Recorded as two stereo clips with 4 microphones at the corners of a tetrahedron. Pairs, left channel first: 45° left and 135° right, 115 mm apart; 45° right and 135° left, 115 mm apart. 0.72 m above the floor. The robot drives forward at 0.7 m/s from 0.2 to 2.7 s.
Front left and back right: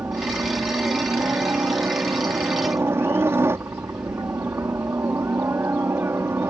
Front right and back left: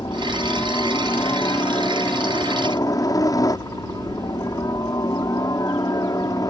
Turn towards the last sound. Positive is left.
turn(degrees=-80)